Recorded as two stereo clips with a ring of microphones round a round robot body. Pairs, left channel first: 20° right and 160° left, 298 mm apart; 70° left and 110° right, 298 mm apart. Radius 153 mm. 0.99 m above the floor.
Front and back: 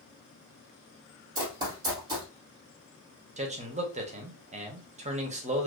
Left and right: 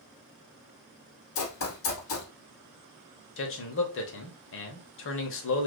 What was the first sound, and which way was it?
Running footsteps, 85° left.